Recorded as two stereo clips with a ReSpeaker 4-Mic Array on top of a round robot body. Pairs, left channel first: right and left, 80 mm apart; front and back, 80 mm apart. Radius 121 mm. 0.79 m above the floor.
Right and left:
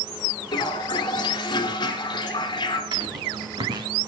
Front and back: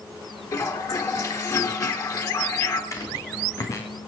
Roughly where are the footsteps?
Ahead left.